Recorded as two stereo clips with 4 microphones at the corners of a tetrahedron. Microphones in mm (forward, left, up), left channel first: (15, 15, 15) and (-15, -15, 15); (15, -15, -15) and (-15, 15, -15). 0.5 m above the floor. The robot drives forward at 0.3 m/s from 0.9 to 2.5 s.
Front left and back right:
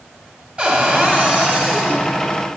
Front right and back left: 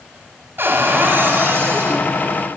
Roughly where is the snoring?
No snoring in this recording.